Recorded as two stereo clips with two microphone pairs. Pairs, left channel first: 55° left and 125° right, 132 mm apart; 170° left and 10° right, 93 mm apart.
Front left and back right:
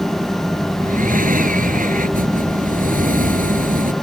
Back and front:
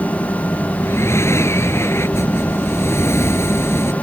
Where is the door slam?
I don't hear a door slam.